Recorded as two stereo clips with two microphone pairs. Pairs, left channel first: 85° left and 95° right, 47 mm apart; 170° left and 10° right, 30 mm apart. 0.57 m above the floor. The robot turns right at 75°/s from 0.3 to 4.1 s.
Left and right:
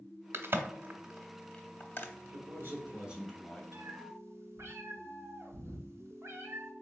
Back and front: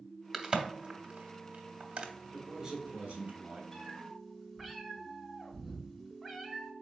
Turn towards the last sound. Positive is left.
turn(degrees=-80)